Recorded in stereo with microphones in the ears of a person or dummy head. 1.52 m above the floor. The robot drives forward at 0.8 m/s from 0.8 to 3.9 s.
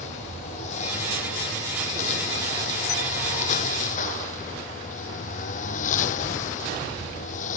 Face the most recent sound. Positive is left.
turn(degrees=50)  # may be behind; listen again after turning